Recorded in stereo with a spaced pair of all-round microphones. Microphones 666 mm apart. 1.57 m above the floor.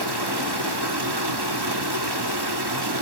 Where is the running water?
35° right (ahead or behind), 1.3 m.